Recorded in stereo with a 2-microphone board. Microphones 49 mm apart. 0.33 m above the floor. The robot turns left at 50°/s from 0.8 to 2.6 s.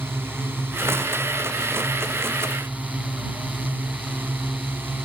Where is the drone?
50° right (ahead or behind); by 5.1 s 45° right (ahead or behind).